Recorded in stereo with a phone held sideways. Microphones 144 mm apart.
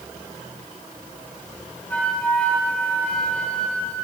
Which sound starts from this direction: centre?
A flute, at 1.9 s.